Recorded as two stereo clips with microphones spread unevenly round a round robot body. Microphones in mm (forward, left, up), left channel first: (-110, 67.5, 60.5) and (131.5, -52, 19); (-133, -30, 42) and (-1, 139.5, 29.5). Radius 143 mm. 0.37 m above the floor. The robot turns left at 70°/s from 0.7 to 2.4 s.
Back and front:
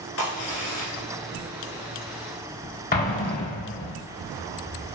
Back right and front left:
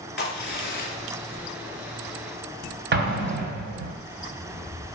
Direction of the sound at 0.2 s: 165° right.